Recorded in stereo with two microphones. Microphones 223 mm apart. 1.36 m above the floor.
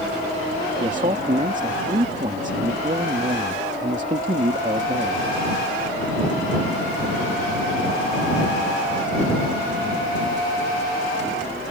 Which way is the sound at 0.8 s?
35° right (ahead or behind).